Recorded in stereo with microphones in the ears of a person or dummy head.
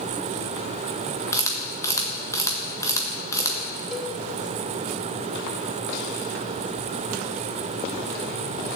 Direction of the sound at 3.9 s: 10° left (ahead or behind).